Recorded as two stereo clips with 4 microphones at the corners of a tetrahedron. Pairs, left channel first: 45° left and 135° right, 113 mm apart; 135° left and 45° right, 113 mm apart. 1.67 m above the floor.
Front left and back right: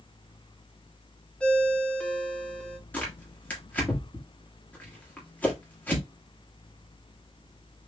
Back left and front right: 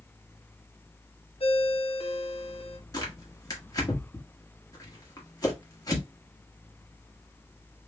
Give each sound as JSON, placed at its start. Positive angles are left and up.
{"t": 1.4, "sound": "a ringtone", "azimuth_deg": 125, "distance_m": 0.8}
{"t": 2.9, "sound": "tearing paper", "azimuth_deg": 110, "distance_m": 1.3}